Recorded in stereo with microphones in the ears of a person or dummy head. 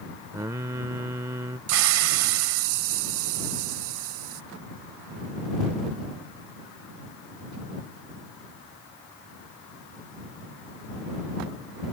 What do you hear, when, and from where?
0.3 s singing: 15° right (ahead or behind)
1.7 s a hiss: 85° right